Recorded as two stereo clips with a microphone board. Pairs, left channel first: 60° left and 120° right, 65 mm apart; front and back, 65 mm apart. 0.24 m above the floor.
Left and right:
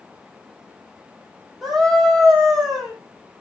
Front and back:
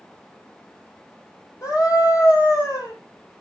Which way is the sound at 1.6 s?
25° right.